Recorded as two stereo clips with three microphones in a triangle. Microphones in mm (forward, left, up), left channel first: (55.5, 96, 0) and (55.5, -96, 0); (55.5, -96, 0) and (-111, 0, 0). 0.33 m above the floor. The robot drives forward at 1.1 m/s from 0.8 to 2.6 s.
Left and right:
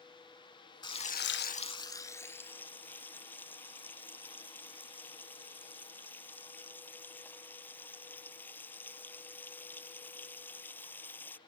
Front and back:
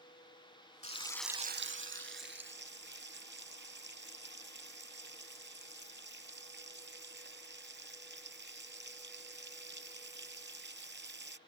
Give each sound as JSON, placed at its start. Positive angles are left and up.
{"t": 0.8, "sound": "frying", "azimuth_deg": 20}